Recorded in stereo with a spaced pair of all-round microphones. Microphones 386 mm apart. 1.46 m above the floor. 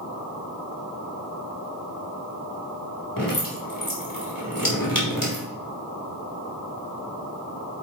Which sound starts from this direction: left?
Dripping, at 3.2 s.